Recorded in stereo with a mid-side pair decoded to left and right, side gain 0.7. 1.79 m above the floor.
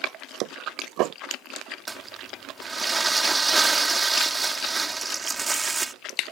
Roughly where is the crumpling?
Ahead.